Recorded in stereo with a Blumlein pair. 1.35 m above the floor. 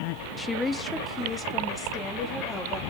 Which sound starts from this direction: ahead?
A woman speaking, at 0.4 s.